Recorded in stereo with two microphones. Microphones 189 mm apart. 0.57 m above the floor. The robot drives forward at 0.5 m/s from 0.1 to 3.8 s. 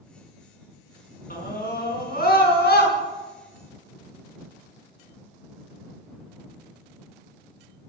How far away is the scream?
About 6 m.